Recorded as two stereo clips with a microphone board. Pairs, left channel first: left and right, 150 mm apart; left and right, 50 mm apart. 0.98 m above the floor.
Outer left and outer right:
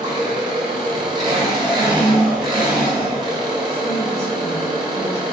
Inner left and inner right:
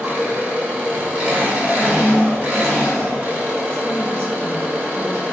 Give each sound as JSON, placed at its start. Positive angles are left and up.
{"t": 0.0, "sound": "an engine running", "side_deg": -30, "distance_m": 1.2}
{"t": 1.7, "sound": "a woman speaking", "side_deg": -40, "distance_m": 1.8}